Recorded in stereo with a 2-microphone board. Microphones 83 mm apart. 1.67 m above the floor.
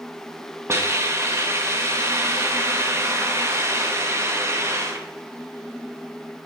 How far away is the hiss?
About 1.1 m.